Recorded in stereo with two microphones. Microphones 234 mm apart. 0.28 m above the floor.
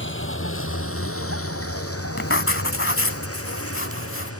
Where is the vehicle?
55° left (ahead or behind); by 4.4 s 85° left.